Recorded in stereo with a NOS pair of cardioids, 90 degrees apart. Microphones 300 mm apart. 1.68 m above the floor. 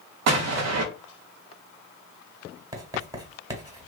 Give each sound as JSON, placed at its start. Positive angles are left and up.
{"t": 0.3, "sound": "an explosion", "azimuth_deg": -60, "distance_m": 0.7}
{"t": 2.7, "sound": "writing", "azimuth_deg": -10, "distance_m": 1.2}